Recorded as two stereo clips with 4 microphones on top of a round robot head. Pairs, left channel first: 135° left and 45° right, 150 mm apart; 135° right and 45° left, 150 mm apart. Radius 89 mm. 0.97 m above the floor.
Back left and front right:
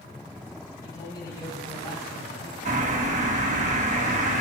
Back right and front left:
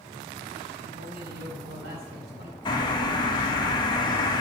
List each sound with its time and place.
0.8 s a man speaking: 65° left, 5 m
2.6 s a bird: 75° right, 1.5 m